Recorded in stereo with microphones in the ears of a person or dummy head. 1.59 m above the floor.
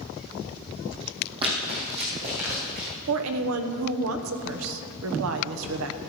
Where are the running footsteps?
25° right (ahead or behind), 3 m; by 2.9 s 40° right (ahead or behind), 5 m.